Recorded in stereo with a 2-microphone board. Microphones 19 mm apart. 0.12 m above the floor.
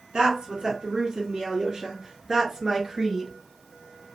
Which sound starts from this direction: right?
A woman speaking, at 0.1 s.